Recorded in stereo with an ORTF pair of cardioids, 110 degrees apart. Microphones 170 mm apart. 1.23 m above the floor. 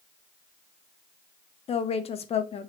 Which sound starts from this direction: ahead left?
A woman speaking, at 1.7 s.